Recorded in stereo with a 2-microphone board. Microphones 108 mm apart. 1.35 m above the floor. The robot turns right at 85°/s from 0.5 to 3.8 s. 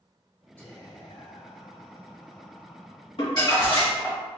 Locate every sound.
0.6 s whispering: 15° left, 0.6 m; by 3.1 s 130° right, 0.6 m
3.2 s crumpling: 120° left, 1.7 m; by 4.2 s 175° left, 1.7 m